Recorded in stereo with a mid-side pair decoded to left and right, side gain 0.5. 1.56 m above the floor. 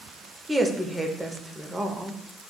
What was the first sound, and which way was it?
A woman speaking, 20° right.